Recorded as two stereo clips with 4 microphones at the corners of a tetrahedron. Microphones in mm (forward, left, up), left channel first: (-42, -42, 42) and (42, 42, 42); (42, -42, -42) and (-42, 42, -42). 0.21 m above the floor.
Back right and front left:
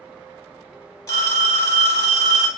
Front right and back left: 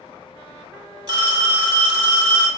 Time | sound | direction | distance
1.1 | a phone ringing | 175° left | 1.0 m